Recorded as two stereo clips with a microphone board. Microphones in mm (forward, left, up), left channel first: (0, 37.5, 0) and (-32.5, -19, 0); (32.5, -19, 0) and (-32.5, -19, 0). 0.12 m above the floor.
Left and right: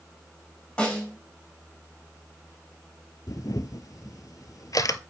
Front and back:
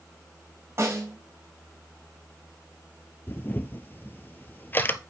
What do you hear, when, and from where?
0.8 s a snare drum: 135° left, 4 m
3.3 s a camera shutter: 55° left, 0.7 m